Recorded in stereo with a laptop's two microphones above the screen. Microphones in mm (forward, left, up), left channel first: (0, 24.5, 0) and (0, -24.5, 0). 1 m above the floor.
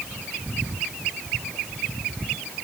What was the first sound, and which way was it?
Only background noise.